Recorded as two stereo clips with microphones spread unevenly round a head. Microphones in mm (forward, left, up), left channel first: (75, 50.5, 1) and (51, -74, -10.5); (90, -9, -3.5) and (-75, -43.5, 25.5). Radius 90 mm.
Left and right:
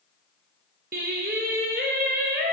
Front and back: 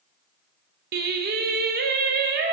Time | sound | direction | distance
0.9 | singing | 140° right | 0.8 m